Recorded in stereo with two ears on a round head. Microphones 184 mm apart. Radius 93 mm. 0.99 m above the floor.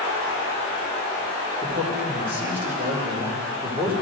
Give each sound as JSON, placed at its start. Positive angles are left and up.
{"t": 1.6, "sound": "a man speaking", "side_deg": -10, "distance_m": 3.0}